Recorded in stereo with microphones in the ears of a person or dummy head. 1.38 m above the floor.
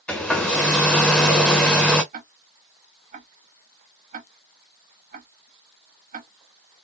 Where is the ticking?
40° right (ahead or behind), 0.6 m.